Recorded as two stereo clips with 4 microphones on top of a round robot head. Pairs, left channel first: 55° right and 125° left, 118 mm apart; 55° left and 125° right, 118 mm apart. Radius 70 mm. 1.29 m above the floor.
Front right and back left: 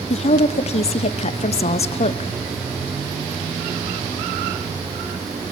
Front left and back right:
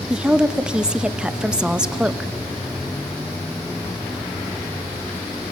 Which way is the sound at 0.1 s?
45° right.